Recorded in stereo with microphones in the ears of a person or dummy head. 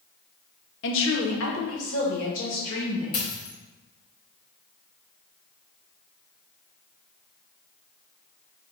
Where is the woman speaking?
60° left (ahead or behind), 0.8 m.